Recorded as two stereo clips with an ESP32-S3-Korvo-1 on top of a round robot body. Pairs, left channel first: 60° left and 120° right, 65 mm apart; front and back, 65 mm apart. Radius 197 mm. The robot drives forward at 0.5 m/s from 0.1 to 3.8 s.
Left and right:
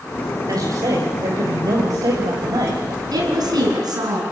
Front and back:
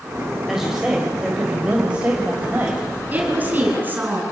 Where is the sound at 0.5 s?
100° right, 3.5 m; by 2.8 s 115° right, 4 m.